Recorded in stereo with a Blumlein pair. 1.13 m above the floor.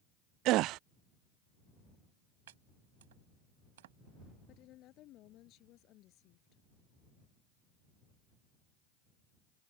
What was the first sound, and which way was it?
A gasp, 40° right.